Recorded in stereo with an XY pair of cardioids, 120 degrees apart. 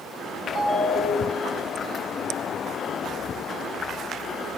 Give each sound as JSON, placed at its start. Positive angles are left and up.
{"t": 0.6, "sound": "a ringtone", "azimuth_deg": -40, "distance_m": 1.5}